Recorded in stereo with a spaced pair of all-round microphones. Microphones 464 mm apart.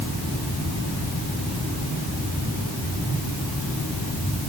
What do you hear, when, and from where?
Only background noise.